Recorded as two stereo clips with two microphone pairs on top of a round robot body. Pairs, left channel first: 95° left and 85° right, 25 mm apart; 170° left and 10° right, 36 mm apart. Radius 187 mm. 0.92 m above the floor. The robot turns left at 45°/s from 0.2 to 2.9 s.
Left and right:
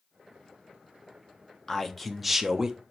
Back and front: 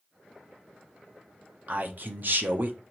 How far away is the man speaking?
About 0.9 m.